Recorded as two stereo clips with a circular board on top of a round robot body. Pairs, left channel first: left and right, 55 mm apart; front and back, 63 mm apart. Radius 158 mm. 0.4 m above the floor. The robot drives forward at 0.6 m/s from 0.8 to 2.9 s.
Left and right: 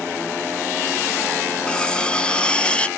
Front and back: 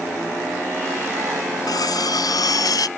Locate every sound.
1.7 s cutlery clinking: 15° left; by 2.9 s 20° left